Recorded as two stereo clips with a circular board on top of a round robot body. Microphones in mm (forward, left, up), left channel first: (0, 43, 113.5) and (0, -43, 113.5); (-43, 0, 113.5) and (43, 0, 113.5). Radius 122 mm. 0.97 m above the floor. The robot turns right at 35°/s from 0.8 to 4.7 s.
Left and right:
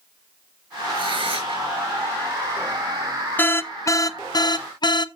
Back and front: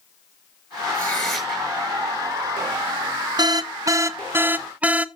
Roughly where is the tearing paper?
Right.